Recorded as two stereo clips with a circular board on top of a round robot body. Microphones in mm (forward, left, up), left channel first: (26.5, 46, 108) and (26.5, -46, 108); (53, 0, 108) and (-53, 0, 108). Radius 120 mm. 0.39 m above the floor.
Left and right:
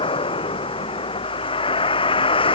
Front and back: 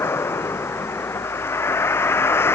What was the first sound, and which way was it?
A vehicle, 70° left.